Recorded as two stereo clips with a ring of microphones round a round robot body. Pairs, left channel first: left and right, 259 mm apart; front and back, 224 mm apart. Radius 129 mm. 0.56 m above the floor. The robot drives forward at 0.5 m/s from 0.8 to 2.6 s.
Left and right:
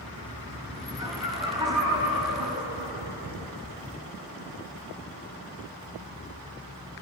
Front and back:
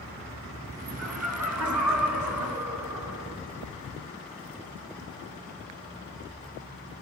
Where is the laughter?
165° right, 6 m.